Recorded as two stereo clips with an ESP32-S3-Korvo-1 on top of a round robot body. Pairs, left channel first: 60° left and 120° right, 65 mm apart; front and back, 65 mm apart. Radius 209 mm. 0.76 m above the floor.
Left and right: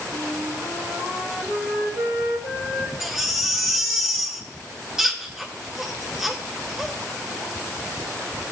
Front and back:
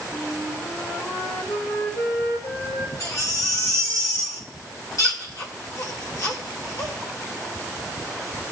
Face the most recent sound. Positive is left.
turn(degrees=-40)